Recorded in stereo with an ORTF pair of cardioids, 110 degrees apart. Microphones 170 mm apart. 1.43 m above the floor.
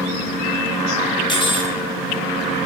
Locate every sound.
1.3 s cutlery clinking: 30° left, 2.0 m